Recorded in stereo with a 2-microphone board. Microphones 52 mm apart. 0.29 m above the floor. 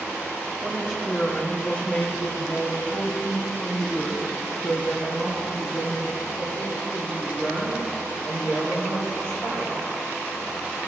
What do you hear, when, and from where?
0.6 s a woman speaking: 5° left (ahead or behind), 1.0 m; by 9.7 s 25° left (ahead or behind), 6 m